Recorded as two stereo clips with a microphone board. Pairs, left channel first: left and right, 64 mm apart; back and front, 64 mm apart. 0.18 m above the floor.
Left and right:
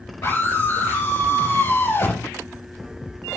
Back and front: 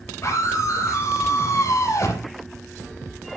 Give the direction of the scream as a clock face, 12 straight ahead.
7 o'clock.